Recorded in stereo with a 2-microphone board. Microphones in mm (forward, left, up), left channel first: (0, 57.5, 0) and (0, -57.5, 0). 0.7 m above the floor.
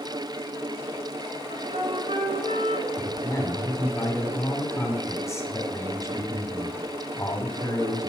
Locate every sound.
1.5 s a flute: 75° right (ahead or behind), 1.5 m
3.0 s a man speaking: 25° left (ahead or behind), 2.5 m